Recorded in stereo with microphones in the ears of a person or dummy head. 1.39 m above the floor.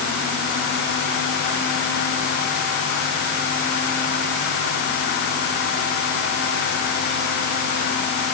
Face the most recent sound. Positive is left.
No sound to turn to.